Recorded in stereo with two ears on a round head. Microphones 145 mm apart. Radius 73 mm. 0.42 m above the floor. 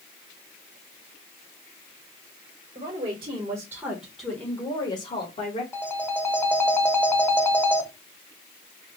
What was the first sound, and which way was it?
A woman speaking, 40° right (ahead or behind).